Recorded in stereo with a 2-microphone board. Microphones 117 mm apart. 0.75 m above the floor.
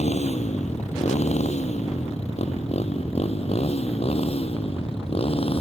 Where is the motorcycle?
75° left (ahead or behind); by 5.6 s 55° left (ahead or behind).